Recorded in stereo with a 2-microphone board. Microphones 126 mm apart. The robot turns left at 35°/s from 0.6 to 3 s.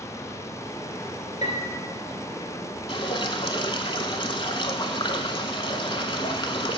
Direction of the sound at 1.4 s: 65° left (ahead or behind).